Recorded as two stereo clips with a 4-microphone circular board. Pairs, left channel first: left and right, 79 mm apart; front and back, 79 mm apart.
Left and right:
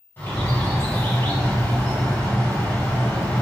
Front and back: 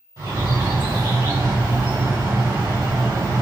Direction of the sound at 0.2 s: 155° left.